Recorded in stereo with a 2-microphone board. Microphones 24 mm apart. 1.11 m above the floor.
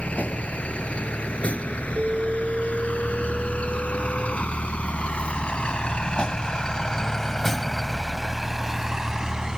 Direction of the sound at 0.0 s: 85° left.